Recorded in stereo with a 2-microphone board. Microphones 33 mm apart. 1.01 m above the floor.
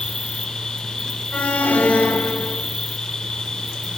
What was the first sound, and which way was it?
An insect, 20° left (ahead or behind).